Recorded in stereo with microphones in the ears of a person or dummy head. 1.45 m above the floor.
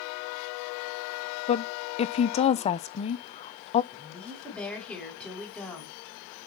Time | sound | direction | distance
1.5 | a woman speaking | 35° left (ahead or behind) | 0.6 m
3.9 | a woman speaking | 5° left (ahead or behind) | 5.5 m